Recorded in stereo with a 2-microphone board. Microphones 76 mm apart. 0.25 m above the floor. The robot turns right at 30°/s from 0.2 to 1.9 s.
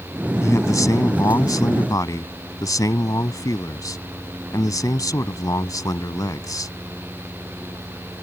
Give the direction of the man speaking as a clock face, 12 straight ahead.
10 o'clock.